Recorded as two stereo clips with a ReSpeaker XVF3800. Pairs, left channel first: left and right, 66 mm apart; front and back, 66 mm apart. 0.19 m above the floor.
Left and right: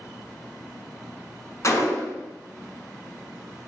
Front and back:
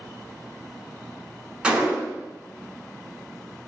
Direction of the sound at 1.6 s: 110° left.